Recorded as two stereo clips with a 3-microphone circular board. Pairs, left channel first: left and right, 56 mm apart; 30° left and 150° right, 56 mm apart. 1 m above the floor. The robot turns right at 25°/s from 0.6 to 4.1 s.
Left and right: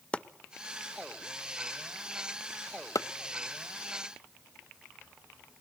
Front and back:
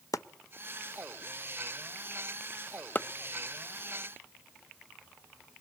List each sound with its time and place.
0.1 s chopping: 20° left, 0.6 m; by 5.6 s 110° left, 0.6 m